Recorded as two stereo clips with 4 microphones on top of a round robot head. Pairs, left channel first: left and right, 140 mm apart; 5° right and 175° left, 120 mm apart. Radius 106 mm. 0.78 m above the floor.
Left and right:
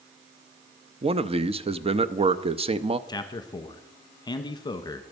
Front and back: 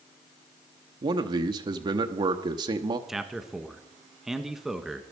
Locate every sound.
1.0 s a man speaking: 135° right, 0.7 m
3.1 s a man speaking: 90° left, 1.2 m